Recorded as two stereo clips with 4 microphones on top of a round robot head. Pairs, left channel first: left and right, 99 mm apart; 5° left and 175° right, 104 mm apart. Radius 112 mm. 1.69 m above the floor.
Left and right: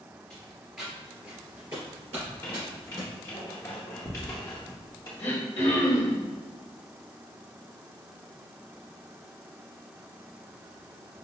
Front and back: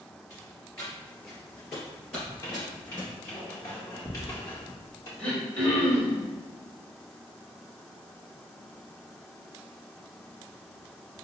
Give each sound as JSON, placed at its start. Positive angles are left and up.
{"t": 0.3, "sound": "footsteps", "azimuth_deg": 25, "distance_m": 1.7}
{"t": 2.2, "sound": "a squeak", "azimuth_deg": 45, "distance_m": 0.6}
{"t": 5.2, "sound": "throat clearing", "azimuth_deg": 75, "distance_m": 1.3}